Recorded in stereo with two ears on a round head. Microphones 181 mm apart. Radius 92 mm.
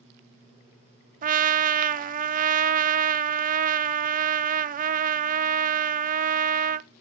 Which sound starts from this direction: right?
A trumpet, at 1.2 s.